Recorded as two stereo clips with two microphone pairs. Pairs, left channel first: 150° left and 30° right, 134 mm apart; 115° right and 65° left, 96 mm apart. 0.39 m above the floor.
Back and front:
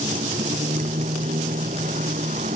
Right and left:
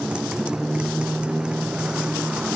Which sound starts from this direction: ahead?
A motorcycle, at 0.0 s.